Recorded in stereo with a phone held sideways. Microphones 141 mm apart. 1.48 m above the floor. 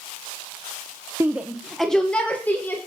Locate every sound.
1.2 s a shout: 20° right (ahead or behind), 0.7 m; by 2.8 s 15° left (ahead or behind), 1.8 m